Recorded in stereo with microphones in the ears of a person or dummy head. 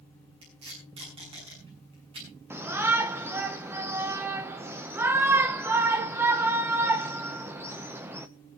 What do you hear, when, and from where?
0.4 s tape being pulled: 30° right (ahead or behind), 7.5 m
2.5 s a shout: 15° right (ahead or behind), 1.3 m